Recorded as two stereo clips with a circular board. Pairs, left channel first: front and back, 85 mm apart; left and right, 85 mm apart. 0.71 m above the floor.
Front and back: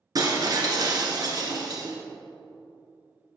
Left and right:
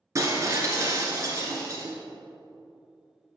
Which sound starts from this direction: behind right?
Breaking glass, at 0.1 s.